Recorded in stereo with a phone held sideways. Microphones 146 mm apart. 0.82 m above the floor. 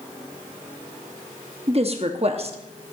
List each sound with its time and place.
1.7 s a woman speaking: 45° right (ahead or behind), 0.9 m